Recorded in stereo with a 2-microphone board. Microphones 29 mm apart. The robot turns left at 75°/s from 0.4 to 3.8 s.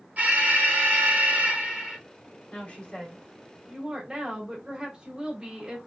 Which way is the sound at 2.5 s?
65° left.